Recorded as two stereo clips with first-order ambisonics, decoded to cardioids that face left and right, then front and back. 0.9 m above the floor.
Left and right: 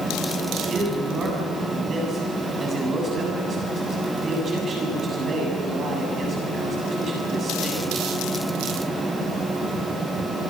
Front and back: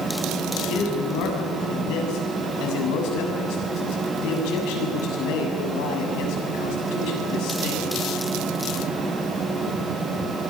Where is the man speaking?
20° right, 7.5 m.